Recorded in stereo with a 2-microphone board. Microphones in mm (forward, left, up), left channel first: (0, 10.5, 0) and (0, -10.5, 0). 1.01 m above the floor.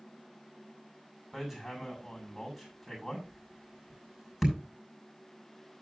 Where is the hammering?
5° right (ahead or behind), 5.5 m.